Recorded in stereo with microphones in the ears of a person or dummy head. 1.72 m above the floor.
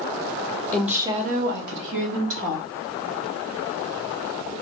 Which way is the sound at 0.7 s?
5° left (ahead or behind).